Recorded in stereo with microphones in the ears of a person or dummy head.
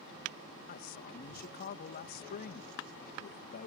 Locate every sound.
0.7 s a man speaking: 50° left (ahead or behind)